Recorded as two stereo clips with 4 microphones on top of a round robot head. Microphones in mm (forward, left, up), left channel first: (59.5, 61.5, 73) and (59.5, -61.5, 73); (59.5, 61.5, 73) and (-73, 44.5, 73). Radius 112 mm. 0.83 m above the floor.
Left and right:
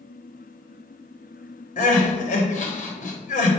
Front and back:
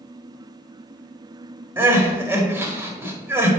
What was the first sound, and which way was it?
Crying, 110° left.